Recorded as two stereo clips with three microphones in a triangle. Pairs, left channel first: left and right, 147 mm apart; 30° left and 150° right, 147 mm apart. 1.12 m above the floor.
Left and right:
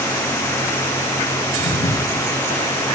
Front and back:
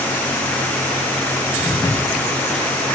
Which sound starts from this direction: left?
Footsteps, at 1.6 s.